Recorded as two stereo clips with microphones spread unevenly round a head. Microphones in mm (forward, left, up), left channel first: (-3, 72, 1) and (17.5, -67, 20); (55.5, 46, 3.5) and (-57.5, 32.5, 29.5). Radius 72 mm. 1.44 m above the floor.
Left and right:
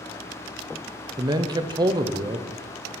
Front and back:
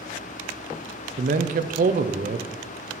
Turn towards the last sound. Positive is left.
turn(degrees=-150)